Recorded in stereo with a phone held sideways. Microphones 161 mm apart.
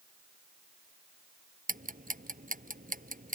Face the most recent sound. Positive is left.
turn(degrees=-60)  # may be behind; listen again after turning